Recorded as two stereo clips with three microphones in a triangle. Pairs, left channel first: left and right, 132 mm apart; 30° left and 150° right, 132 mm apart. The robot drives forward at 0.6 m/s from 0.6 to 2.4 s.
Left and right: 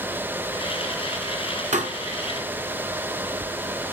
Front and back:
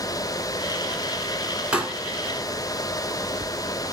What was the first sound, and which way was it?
A pop, 70° right.